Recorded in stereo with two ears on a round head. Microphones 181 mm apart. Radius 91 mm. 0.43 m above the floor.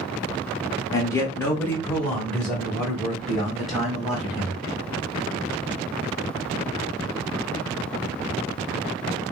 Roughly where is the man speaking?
Centre.